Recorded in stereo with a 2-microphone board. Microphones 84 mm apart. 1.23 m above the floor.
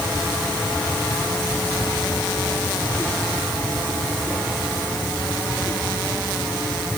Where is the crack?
No crack in this recording.